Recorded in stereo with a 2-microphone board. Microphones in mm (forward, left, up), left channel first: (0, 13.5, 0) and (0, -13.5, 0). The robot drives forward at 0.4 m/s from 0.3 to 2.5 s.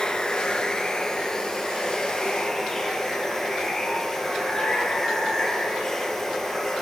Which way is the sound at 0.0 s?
25° left (ahead or behind).